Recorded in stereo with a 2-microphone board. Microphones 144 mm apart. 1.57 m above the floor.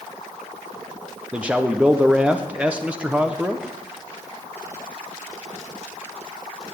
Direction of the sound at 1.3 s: 10° right (ahead or behind).